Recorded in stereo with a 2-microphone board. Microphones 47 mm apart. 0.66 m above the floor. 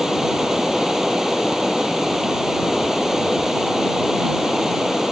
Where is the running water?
5° right (ahead or behind).